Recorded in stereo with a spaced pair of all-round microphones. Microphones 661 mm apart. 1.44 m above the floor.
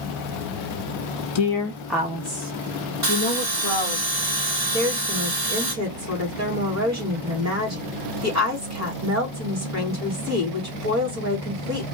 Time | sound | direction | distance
1.4 | a woman speaking | 50° left (ahead or behind) | 0.5 m
3.0 | a bell | 55° right (ahead or behind) | 2 m
4.7 | a woman speaking | 25° right (ahead or behind) | 2 m